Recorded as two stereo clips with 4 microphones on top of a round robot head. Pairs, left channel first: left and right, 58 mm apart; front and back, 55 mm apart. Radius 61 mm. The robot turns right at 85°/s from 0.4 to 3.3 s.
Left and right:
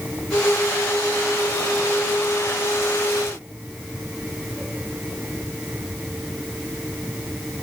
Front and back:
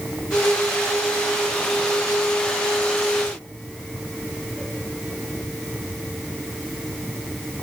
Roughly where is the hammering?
I don't hear hammering.